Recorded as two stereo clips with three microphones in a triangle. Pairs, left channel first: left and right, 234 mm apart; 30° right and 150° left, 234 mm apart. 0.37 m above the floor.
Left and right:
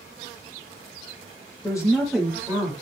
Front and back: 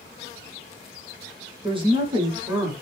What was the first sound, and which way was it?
A woman speaking, 130° left.